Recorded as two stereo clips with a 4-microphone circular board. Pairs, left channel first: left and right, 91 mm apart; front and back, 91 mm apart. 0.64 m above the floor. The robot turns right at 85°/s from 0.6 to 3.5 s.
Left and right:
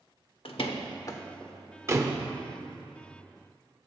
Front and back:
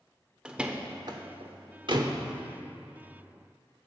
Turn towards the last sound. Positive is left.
turn(degrees=-10)